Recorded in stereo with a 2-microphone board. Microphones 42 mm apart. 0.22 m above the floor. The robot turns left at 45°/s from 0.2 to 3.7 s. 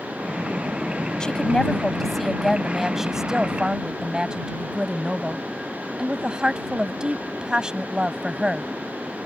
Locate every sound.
1.2 s a woman speaking: 25° left (ahead or behind); by 8.7 s 20° right (ahead or behind)